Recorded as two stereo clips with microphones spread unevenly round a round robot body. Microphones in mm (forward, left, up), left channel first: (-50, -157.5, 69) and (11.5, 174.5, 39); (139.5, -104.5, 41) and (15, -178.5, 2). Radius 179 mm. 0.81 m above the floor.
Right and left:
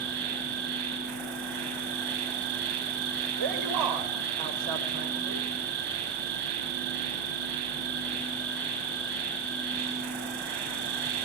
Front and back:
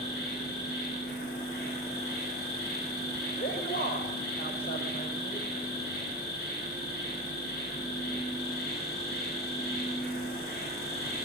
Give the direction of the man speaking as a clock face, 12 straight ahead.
9 o'clock.